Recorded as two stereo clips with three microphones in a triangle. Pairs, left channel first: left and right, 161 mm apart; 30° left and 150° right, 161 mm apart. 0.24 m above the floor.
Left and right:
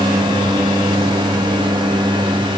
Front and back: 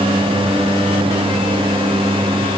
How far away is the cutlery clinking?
I don't hear cutlery clinking.